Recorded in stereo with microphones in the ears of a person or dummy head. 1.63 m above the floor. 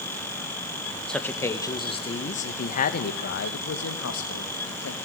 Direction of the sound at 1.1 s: 5° left (ahead or behind).